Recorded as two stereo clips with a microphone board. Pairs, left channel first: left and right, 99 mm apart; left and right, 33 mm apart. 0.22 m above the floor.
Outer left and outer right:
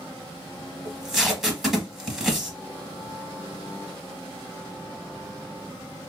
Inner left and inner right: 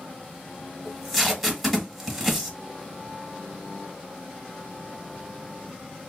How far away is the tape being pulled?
About 1.1 m.